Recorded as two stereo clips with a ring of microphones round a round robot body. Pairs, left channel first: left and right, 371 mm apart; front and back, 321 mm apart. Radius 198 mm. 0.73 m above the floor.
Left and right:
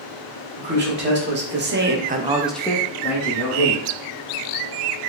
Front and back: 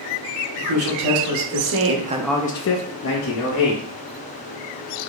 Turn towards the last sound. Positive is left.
turn(degrees=20)